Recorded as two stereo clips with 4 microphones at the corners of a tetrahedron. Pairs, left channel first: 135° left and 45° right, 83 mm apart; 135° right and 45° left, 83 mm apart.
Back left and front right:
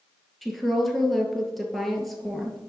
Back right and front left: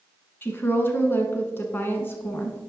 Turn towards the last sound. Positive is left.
turn(degrees=-140)